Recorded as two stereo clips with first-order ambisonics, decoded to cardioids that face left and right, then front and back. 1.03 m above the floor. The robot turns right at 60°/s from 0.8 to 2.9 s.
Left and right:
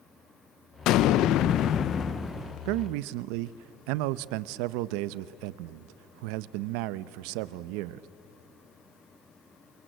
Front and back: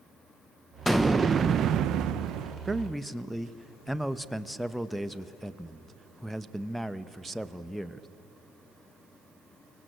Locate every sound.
0.9 s an explosion: 90° left, 0.7 m; by 2.5 s 170° right, 0.7 m
2.6 s a man speaking: 105° right, 0.7 m; by 8.1 s 90° right, 0.7 m